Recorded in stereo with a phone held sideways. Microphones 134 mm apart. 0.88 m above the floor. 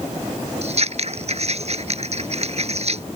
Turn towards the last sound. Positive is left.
turn(degrees=-55)  # may be behind; listen again after turning